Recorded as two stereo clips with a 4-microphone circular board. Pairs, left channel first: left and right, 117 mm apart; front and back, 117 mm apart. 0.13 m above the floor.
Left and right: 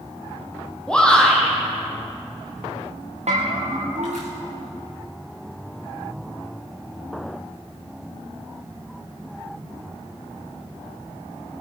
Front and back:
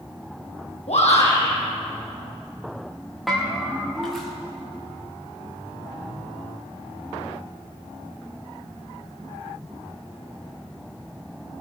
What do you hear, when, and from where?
0.9 s a shout: 10° left, 4.5 m
3.3 s a bell: 90° right, 4 m